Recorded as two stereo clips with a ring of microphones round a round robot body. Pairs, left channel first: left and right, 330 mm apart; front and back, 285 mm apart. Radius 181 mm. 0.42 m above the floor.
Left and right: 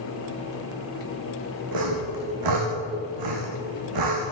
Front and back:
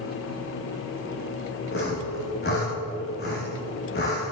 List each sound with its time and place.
1.7 s sawing: 65° right, 6.5 m